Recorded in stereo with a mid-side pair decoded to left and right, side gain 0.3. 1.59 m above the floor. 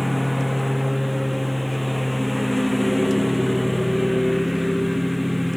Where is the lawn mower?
10° left.